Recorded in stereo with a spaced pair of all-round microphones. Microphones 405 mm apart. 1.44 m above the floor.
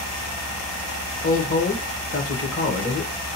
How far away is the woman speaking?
About 1.0 m.